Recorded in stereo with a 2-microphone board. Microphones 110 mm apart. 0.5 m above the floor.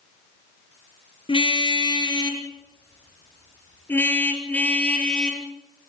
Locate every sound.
1.3 s a car horn: 50° left (ahead or behind), 4.5 m; by 5.5 s 5° left (ahead or behind), 6 m